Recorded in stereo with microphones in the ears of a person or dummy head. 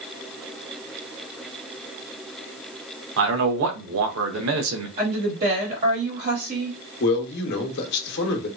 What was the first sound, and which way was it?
A man speaking, 70° right (ahead or behind).